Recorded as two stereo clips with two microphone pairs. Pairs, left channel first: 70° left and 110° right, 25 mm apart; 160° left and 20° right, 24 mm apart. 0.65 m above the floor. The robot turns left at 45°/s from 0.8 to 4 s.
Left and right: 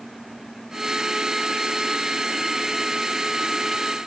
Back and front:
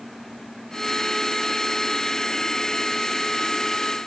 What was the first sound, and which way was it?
Only background noise.